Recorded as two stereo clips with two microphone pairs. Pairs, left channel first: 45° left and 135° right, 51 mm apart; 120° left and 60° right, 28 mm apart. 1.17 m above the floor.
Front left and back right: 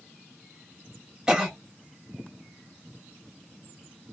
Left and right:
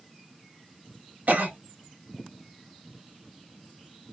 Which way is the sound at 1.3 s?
55° right.